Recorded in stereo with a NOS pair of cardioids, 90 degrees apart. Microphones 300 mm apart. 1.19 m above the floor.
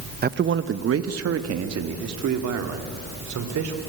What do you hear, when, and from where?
0.2 s a man speaking: 30° right, 0.9 m; by 3.8 s 70° right, 3.5 m